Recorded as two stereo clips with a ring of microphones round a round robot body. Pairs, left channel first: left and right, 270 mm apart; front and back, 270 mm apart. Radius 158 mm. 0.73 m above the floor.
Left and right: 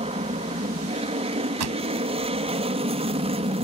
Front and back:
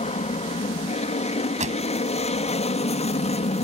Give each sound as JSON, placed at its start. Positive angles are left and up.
{"t": 0.0, "sound": "an aircraft", "azimuth_deg": -40}
{"t": 1.6, "sound": "a pop", "azimuth_deg": -115}